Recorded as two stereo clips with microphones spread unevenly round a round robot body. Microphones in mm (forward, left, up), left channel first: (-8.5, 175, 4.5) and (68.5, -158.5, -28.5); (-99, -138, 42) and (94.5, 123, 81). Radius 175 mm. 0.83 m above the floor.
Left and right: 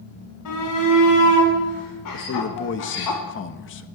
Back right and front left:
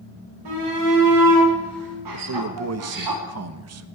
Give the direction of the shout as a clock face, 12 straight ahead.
10 o'clock.